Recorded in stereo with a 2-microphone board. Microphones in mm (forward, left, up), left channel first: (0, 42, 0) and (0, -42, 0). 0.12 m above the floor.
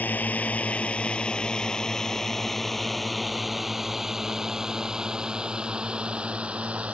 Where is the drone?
20° left (ahead or behind); by 6.9 s 15° right (ahead or behind).